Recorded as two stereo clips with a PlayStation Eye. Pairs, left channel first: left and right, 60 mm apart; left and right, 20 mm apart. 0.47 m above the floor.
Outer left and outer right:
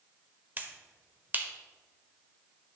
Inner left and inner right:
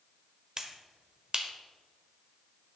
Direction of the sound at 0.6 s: 35° right (ahead or behind).